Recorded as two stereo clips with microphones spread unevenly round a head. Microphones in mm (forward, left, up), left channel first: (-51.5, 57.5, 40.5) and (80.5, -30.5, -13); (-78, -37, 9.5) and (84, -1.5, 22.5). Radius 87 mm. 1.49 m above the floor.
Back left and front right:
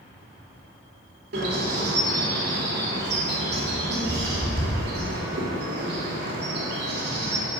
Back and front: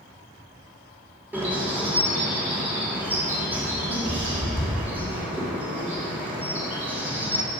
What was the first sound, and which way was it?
A bird, 65° right.